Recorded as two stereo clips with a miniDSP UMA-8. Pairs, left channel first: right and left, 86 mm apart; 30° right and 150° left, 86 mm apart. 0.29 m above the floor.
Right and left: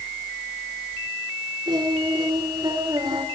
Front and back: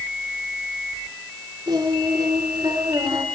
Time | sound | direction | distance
1.7 | singing | 115° left | 3.5 m